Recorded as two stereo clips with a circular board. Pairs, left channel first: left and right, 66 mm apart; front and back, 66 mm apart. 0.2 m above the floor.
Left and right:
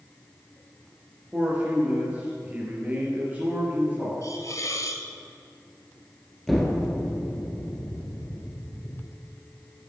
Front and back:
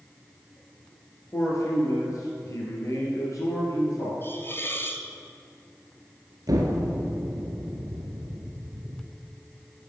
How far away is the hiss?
About 0.8 m.